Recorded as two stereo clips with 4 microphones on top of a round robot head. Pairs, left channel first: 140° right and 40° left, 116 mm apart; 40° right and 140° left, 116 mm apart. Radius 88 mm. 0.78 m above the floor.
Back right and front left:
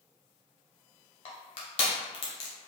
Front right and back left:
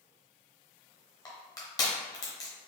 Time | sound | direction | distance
1.2 | crushing | 100° right | 0.8 m